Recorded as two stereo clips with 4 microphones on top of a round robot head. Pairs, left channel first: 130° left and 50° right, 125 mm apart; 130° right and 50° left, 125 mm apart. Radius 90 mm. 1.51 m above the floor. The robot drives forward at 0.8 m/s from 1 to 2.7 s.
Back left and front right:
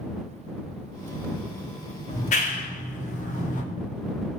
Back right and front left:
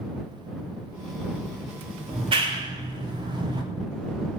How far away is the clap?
About 3 m.